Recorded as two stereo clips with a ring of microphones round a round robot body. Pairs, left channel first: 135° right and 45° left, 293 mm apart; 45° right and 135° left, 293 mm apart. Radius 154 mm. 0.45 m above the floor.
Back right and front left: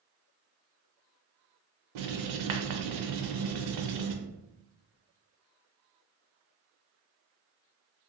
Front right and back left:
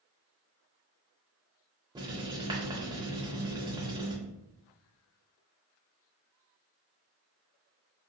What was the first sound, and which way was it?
Writing, 60° left.